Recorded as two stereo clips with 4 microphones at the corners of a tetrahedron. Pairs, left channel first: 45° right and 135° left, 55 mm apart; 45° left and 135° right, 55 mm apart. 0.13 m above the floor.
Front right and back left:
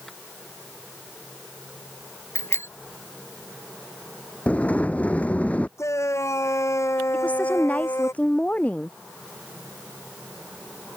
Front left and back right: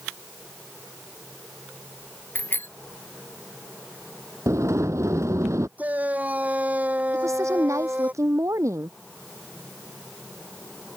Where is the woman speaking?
110° right.